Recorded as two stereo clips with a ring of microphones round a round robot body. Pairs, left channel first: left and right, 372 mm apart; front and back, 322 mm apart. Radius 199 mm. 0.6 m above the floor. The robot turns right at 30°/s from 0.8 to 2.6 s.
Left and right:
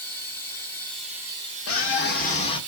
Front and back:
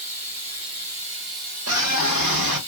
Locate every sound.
0.0 s running water: 175° left, 1.4 m; by 2.7 s 130° right, 1.4 m
1.7 s a scream: 140° left, 1.2 m; by 2.6 s 165° left, 1.2 m